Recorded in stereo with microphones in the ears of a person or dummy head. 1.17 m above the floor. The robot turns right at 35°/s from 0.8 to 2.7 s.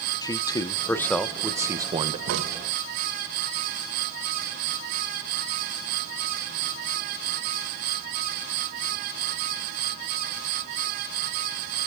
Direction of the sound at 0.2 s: 165° left.